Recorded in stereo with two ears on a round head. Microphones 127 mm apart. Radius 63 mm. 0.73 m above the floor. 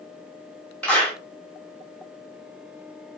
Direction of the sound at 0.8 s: 10° left (ahead or behind).